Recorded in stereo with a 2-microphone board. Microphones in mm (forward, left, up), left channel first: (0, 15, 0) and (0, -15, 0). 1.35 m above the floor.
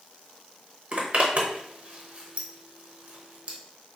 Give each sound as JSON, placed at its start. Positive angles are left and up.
{"t": 0.9, "sound": "a zipper", "side_deg": -40, "distance_m": 0.8}